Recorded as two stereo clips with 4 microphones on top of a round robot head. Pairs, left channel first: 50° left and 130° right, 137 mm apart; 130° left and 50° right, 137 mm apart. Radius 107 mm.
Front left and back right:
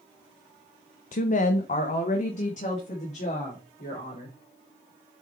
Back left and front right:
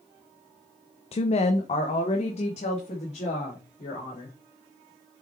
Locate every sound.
1.1 s a woman speaking: 80° left, 0.6 m; by 4.4 s 85° left, 4 m